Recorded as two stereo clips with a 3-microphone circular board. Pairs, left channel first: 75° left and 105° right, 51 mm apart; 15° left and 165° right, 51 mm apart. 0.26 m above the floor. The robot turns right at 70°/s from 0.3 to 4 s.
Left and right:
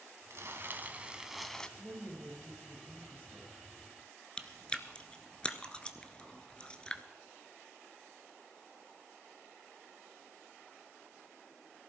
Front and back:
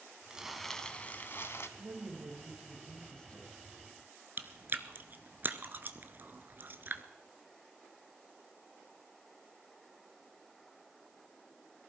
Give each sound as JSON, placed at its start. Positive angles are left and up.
{"t": 0.3, "sound": "crumpling", "azimuth_deg": -95, "distance_m": 1.1}
{"t": 1.8, "sound": "a woman speaking", "azimuth_deg": -155, "distance_m": 5.0}
{"t": 4.4, "sound": "chewing", "azimuth_deg": 145, "distance_m": 0.9}